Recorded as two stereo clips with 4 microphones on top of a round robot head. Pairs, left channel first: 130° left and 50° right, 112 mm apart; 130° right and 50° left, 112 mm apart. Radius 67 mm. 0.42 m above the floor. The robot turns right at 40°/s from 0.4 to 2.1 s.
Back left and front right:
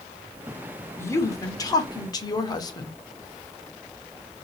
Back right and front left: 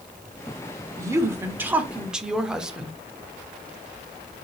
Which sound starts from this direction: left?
A woman speaking, at 1.0 s.